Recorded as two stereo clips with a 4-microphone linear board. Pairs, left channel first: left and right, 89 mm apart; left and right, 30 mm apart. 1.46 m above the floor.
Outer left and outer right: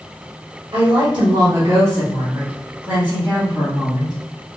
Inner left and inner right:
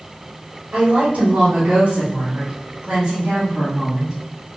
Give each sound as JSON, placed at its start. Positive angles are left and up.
{"t": 0.7, "sound": "a woman speaking", "side_deg": -55, "distance_m": 1.3}